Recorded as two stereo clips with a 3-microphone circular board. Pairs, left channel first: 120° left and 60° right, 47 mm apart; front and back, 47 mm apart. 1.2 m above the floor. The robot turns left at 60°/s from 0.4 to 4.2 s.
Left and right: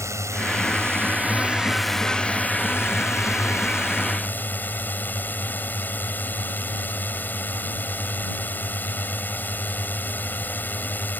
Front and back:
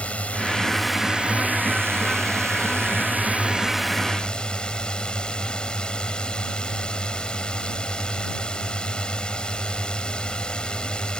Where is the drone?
60° right; by 11.2 s 70° left.